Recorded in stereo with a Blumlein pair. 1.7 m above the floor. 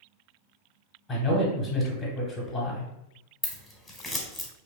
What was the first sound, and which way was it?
A man speaking, 15° left.